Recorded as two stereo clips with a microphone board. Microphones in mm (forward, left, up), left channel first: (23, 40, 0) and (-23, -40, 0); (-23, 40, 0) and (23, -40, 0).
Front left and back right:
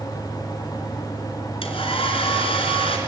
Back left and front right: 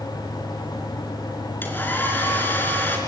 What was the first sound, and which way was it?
A hair dryer, 50° left.